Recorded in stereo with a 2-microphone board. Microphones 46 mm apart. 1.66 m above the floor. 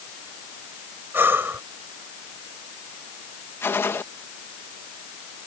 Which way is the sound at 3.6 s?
65° left (ahead or behind).